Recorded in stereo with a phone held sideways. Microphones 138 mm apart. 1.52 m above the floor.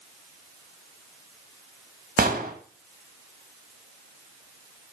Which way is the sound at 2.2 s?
85° right.